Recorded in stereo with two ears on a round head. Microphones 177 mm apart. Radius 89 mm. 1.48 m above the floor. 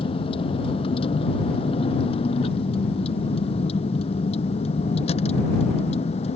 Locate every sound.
0.0 s a vehicle: 30° left (ahead or behind)